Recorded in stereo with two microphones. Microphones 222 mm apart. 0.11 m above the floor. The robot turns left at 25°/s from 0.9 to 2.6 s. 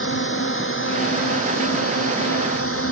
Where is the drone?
115° left; by 2.9 s 75° left.